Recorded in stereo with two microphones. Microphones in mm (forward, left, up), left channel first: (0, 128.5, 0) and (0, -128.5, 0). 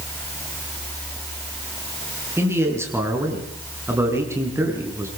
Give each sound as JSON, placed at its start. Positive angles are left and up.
{"t": 2.4, "sound": "a man speaking", "side_deg": -10, "distance_m": 6.0}